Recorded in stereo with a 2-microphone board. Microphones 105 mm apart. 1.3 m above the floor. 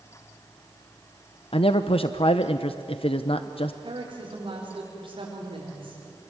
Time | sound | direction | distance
1.5 | a man speaking | 60° left (ahead or behind) | 0.8 m
3.8 | a woman speaking | 55° right (ahead or behind) | 5 m